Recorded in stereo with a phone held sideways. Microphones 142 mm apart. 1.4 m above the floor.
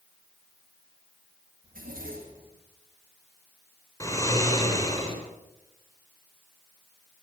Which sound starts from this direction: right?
A zipper, at 1.6 s.